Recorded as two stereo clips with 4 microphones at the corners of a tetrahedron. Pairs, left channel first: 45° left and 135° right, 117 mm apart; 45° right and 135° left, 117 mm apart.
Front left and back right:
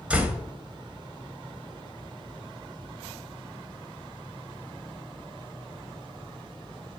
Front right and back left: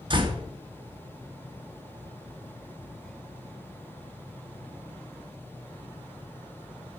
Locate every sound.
0.1 s a door slam: 150° left, 0.9 m